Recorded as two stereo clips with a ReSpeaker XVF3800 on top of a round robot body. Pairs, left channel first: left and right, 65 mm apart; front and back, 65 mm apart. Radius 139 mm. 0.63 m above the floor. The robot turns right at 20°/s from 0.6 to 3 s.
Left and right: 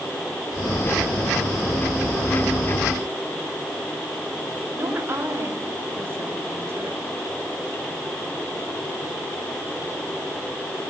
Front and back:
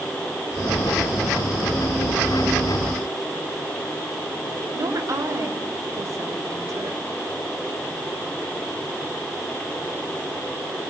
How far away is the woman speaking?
About 4 m.